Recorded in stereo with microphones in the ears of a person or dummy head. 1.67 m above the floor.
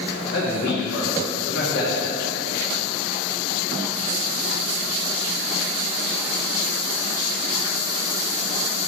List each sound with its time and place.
0.3 s a man speaking: 65° left (ahead or behind), 2.5 m